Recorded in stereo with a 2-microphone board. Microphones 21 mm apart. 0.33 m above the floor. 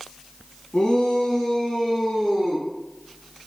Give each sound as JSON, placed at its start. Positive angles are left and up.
{"t": 0.7, "sound": "a shout", "side_deg": 30, "distance_m": 3.0}